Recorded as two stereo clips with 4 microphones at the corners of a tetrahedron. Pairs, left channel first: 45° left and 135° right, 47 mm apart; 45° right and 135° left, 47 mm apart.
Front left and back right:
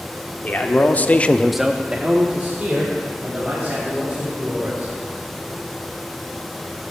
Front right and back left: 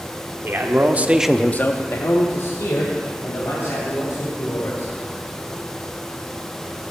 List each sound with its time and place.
0.4 s a man speaking: 95° left, 1.4 m; by 4.9 s 75° right, 5 m